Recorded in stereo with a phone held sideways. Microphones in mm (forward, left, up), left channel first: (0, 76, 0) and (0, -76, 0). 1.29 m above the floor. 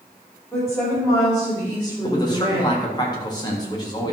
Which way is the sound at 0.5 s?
5° left (ahead or behind).